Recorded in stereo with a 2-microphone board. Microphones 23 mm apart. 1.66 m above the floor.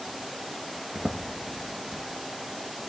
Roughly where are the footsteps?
Right.